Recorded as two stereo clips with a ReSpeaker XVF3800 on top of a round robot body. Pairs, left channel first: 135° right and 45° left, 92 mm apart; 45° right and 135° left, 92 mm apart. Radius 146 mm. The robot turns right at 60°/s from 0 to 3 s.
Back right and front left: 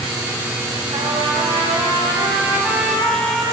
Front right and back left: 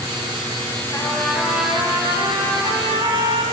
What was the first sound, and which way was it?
A trumpet, 10° left.